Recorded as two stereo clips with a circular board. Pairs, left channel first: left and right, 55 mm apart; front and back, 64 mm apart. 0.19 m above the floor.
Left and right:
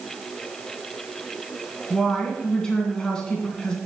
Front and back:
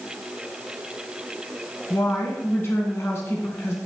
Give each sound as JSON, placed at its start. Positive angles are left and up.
{"t": 1.9, "sound": "a woman speaking", "azimuth_deg": 20, "distance_m": 1.9}